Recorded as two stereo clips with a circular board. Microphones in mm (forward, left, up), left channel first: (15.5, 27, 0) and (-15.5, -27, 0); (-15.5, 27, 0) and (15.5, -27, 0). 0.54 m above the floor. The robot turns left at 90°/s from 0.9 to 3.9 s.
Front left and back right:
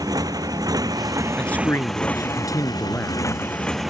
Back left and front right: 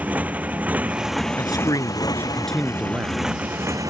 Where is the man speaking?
140° left; by 3.3 s 30° right.